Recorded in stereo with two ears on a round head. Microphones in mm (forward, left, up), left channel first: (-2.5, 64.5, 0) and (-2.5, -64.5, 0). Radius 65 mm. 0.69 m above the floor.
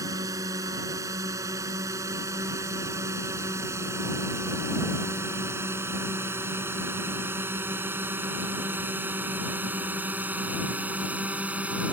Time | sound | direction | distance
0.0 | a drone | 25° right (ahead or behind) | ?